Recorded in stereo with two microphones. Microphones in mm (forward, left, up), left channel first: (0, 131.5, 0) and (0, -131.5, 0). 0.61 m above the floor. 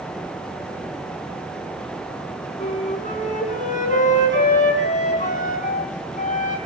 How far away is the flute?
About 3 m.